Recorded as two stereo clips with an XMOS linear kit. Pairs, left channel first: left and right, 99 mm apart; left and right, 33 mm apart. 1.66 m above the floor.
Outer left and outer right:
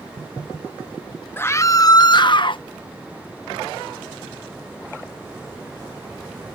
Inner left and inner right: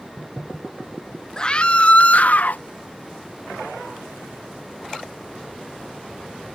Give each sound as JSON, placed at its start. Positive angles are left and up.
{"t": 1.4, "sound": "a scream", "side_deg": 20}